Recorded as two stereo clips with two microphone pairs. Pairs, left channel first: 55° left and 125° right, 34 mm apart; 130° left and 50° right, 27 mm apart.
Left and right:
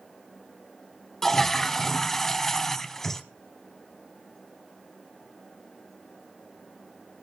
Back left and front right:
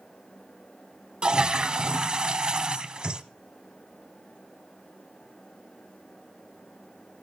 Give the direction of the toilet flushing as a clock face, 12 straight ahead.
1 o'clock.